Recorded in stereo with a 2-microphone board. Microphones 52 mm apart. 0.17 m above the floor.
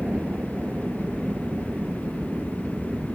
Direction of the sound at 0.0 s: 25° right (ahead or behind).